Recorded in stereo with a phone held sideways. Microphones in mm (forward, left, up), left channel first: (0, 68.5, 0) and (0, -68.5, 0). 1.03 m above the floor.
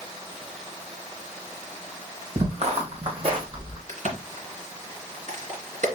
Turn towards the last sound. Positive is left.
turn(degrees=-70)  # may be behind; listen again after turning